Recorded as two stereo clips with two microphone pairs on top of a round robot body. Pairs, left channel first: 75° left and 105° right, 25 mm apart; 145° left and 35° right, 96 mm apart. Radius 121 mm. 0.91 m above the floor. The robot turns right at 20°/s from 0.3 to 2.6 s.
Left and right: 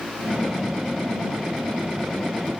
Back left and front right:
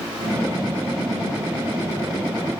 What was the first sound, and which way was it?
Only background noise.